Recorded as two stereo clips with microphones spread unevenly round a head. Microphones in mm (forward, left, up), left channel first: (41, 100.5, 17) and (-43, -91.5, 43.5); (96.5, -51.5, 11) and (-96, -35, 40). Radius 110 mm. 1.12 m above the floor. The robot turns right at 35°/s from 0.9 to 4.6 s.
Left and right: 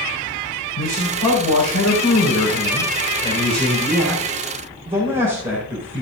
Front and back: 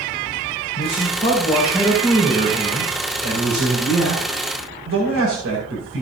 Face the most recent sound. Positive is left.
turn(degrees=180)